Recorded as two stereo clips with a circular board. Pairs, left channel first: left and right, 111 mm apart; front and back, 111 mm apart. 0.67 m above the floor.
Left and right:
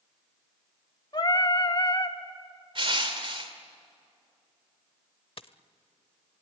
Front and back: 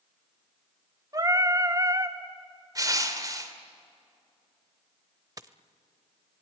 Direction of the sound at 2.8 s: 125° right.